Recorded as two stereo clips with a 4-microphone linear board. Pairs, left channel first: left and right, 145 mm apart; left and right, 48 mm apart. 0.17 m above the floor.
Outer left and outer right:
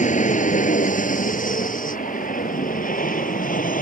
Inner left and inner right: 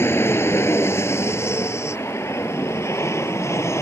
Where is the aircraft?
60° left (ahead or behind); by 3.8 s 70° left (ahead or behind).